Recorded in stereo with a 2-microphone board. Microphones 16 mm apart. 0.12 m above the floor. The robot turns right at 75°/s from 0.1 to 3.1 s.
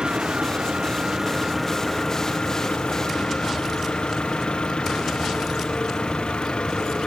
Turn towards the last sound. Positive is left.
turn(degrees=110)